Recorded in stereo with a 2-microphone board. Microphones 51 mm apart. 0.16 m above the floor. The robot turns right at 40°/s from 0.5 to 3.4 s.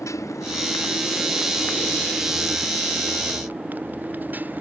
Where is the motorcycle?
100° left; by 4.6 s 145° right.